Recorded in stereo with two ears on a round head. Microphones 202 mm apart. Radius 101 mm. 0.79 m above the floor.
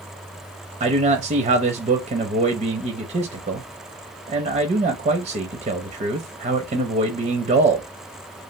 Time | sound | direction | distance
0.8 | a man speaking | 30° right (ahead or behind) | 0.6 m